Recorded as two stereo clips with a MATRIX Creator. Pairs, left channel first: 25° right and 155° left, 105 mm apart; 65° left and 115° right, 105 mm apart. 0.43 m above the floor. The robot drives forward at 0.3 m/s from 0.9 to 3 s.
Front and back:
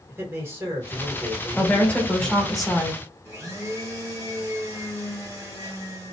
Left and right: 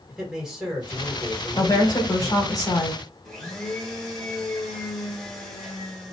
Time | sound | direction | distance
0.1 | a man speaking | 165° left | 1.3 m
1.6 | a woman speaking | 45° left | 1.0 m
3.2 | a blender | 145° left | 1.1 m